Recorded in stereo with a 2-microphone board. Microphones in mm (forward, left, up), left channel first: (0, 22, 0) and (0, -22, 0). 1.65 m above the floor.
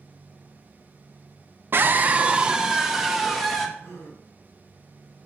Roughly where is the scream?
Right.